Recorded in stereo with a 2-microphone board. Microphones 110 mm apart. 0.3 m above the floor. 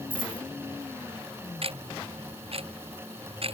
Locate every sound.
0.1 s a dropped coin: 50° right (ahead or behind)
1.6 s ticking: 60° right (ahead or behind)